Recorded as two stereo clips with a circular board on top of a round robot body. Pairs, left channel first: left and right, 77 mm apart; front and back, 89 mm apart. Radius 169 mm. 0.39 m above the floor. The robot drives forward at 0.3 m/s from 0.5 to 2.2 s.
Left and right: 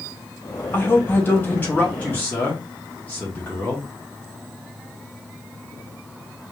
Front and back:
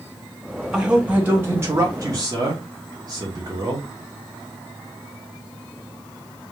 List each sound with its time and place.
0.7 s a man speaking: 105° left, 0.8 m; by 3.9 s 150° left, 0.9 m